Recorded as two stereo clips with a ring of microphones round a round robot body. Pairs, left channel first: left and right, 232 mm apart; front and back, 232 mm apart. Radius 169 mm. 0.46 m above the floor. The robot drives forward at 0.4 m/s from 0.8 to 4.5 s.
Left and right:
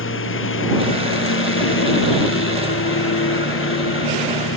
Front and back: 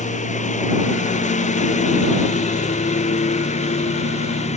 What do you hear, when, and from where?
0.0 s a lawn mower: 60° left